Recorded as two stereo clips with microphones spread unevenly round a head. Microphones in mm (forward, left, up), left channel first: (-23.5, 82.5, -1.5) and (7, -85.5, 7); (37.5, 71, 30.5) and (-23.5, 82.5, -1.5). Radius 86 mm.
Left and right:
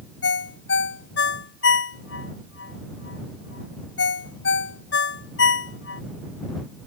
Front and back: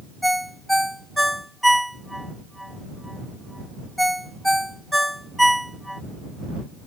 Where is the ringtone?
75° left.